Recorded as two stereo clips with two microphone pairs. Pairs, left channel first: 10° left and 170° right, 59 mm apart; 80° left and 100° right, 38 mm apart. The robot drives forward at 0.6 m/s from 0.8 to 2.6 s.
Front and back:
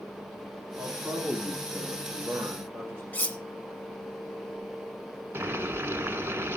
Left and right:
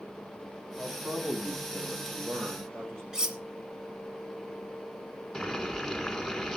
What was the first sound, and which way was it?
A man speaking, 110° right.